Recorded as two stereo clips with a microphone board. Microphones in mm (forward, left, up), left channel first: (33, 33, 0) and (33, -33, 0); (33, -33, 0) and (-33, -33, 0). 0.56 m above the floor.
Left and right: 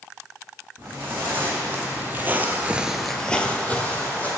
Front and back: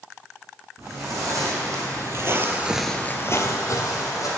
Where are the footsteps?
150° right, 2.5 m; by 4.3 s 25° left, 1.6 m.